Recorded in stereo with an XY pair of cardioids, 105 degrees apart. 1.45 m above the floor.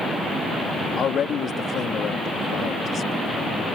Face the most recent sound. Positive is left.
turn(degrees=55)